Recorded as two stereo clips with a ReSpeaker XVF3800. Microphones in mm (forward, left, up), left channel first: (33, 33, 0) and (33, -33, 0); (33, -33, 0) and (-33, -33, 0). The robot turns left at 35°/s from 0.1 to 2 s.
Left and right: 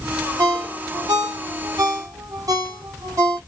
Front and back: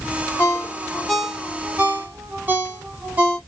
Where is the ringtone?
60° right, 0.9 m; by 3.4 s 120° right, 0.9 m.